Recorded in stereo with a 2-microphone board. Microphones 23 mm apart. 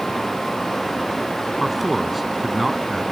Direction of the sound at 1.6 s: Centre (ahead or behind).